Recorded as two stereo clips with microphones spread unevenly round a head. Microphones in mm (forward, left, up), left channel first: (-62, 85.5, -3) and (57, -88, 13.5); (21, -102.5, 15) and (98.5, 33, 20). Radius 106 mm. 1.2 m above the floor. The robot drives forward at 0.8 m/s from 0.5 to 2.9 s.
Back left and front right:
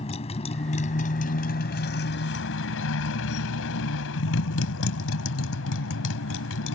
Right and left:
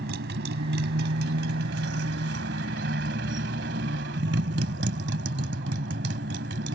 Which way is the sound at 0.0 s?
60° left.